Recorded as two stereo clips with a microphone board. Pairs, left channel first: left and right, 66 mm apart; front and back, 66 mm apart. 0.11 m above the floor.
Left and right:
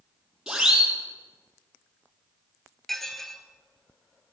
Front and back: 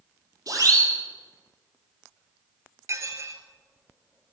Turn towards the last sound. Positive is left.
turn(degrees=175)